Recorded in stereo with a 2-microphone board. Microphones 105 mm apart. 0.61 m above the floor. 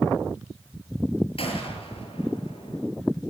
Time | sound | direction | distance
1.4 | a gunshot | 65° left (ahead or behind) | 7 m